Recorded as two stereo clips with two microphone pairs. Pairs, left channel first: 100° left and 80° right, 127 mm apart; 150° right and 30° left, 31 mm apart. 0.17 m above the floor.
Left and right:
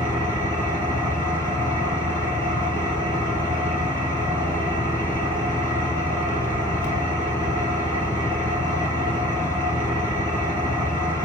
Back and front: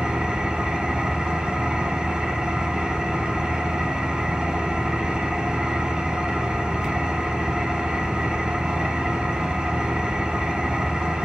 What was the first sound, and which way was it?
An engine running, 35° right.